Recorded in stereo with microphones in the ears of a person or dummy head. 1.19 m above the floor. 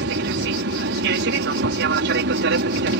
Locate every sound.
0.0 s an aircraft: 60° right (ahead or behind)